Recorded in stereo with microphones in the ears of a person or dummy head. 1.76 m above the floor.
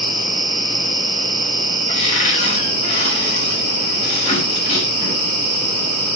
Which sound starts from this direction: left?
A cupboard door, at 1.9 s.